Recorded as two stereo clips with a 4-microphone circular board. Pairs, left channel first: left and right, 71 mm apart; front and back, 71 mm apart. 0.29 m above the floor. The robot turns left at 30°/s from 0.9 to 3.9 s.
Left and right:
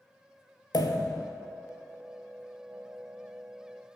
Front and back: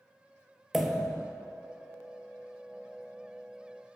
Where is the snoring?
No snoring in this recording.